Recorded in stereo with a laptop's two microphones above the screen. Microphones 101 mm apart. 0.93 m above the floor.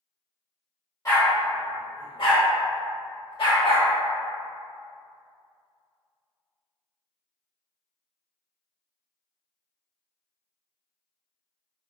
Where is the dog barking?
30° left (ahead or behind), 1.0 m; by 3.9 s 60° left (ahead or behind), 1.4 m.